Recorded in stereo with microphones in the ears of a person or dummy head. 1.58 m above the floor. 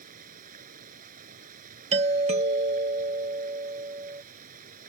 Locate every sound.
0.0 s running water: 45° right (ahead or behind)
1.9 s a doorbell: 35° right (ahead or behind)